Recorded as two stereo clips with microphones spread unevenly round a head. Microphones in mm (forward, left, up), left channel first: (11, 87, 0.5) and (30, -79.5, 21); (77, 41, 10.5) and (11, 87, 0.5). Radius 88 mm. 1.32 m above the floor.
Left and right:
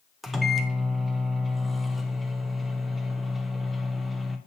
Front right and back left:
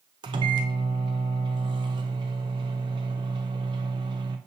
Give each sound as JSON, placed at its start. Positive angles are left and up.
{"t": 0.2, "sound": "a microwave", "azimuth_deg": -175, "distance_m": 0.6}